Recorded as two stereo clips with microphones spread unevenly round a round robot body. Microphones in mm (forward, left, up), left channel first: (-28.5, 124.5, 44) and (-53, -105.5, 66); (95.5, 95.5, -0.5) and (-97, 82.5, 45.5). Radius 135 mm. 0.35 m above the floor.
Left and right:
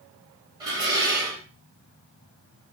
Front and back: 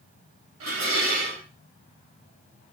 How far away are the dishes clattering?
About 1.3 m.